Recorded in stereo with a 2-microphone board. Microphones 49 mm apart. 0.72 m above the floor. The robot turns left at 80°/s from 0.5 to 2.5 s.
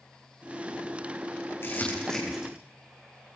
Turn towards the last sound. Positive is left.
turn(degrees=-20)  # may be behind; listen again after turning